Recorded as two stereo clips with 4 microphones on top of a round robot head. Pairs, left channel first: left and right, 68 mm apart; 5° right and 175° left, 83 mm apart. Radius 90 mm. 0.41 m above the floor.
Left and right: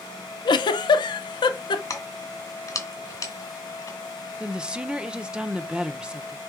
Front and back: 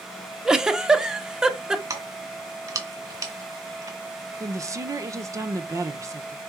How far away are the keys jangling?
About 2 m.